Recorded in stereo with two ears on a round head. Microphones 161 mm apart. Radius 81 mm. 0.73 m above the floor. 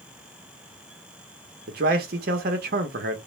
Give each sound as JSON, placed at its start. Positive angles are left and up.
{"t": 1.7, "sound": "a man speaking", "side_deg": -55, "distance_m": 0.8}